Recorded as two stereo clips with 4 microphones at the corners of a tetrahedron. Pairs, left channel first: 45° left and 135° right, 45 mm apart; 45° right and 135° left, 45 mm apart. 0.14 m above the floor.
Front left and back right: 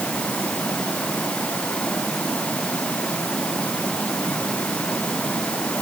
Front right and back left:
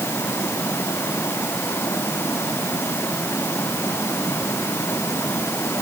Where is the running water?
20° right.